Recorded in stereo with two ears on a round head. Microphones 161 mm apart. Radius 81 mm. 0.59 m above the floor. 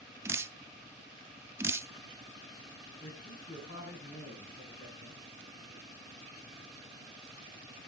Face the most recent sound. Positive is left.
turn(degrees=45)  # may be behind; listen again after turning